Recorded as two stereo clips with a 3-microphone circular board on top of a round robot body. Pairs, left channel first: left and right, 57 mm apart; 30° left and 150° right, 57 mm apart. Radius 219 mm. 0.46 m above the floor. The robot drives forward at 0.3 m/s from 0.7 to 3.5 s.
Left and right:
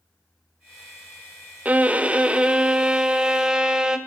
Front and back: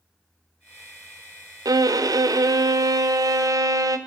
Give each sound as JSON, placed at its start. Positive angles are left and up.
{"t": 1.6, "sound": "a violin", "azimuth_deg": -155, "distance_m": 0.6}